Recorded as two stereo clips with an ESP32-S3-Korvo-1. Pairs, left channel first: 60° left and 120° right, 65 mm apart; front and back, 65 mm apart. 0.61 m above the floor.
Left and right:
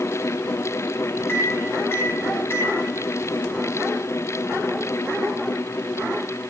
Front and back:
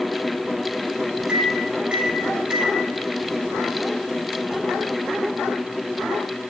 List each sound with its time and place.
1.3 s a microwave: 105° left, 1.2 m